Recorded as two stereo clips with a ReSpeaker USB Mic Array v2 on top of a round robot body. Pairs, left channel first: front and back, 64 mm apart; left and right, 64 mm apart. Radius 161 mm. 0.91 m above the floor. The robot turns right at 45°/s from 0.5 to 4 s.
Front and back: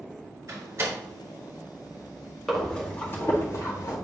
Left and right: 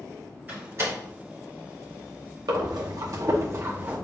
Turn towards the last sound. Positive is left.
turn(degrees=-20)